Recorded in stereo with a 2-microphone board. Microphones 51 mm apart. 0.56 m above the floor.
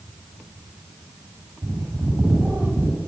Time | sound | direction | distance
1.6 | a bird | 45° right (ahead or behind) | 9.5 m